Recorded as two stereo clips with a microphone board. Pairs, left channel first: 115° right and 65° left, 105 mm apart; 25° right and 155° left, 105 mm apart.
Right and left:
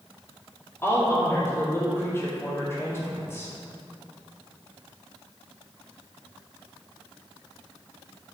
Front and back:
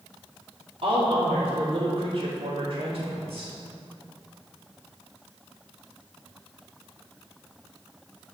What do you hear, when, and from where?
0.8 s a woman speaking: straight behind, 2.5 m